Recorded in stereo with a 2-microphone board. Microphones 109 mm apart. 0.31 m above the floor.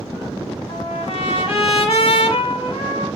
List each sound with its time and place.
0.7 s a trumpet: 55° left (ahead or behind), 0.9 m